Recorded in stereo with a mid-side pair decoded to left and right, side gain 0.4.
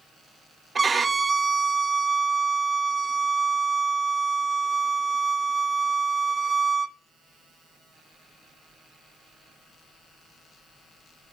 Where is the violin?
35° right, 0.7 m.